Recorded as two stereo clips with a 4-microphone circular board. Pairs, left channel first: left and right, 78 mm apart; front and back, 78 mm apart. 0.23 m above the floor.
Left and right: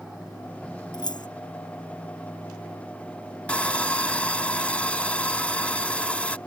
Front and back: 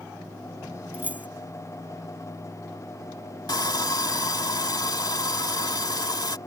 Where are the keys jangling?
110° left.